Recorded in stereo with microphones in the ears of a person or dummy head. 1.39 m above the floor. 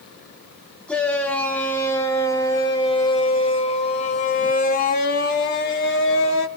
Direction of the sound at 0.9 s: 5° left (ahead or behind).